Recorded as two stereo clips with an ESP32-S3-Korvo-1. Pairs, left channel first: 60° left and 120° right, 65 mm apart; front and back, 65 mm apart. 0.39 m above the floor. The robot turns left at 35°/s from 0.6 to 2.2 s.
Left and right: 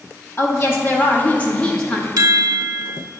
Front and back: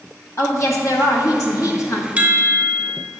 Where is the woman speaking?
25° left, 2 m; by 2.1 s 25° right, 2 m.